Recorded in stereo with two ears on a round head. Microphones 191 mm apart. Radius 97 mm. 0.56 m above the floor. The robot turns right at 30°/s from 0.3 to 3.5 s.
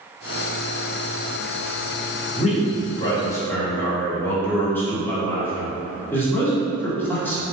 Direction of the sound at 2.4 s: 130° left.